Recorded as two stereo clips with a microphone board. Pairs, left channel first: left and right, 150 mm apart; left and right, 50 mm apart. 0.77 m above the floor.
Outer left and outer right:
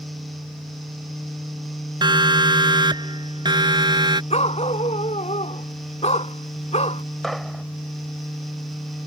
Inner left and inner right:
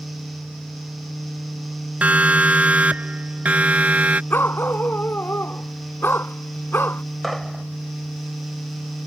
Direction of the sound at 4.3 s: 45° left (ahead or behind).